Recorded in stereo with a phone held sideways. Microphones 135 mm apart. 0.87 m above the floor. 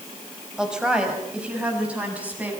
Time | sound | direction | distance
0.6 | a woman speaking | 5° right (ahead or behind) | 4.5 m